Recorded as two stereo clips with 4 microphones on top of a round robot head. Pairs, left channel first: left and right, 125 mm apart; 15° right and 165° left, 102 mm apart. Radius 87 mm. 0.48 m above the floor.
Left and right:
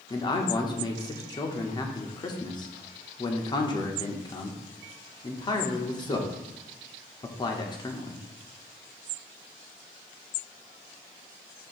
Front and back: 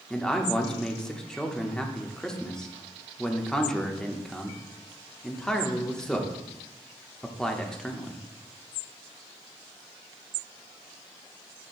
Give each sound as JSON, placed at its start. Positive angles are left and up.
{"t": 0.1, "sound": "a man speaking", "azimuth_deg": 65, "distance_m": 1.1}